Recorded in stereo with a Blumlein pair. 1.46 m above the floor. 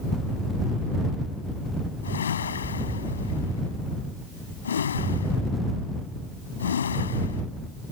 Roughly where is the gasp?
No gasp in this recording.